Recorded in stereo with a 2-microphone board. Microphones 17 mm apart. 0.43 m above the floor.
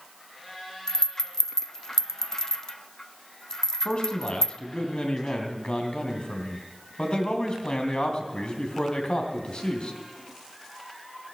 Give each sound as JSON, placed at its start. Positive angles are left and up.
{"t": 0.9, "sound": "a rattle", "side_deg": 35, "distance_m": 0.7}
{"t": 3.9, "sound": "a man speaking", "side_deg": 60, "distance_m": 3.0}